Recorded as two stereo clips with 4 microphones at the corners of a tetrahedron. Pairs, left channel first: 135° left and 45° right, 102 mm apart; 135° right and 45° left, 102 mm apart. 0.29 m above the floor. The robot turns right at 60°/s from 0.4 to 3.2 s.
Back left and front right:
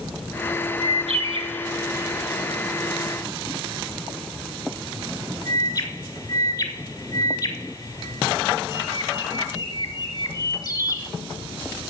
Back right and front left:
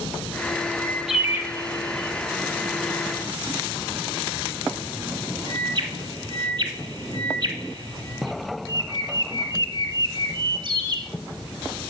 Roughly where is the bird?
Ahead right.